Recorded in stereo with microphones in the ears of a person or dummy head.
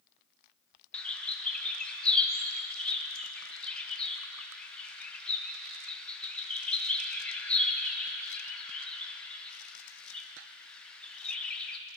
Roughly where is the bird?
Centre.